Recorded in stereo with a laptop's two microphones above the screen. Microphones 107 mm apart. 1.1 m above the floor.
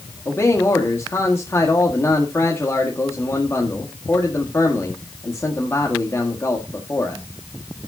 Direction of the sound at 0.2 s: 25° left (ahead or behind).